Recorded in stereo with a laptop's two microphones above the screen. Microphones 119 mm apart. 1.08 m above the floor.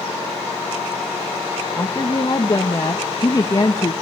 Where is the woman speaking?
30° left (ahead or behind), 1.1 m.